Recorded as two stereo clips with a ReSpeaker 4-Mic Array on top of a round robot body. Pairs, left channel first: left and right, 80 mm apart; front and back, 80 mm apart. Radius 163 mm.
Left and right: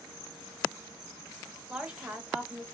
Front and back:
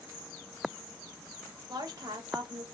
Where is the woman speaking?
165° right, 1.7 m.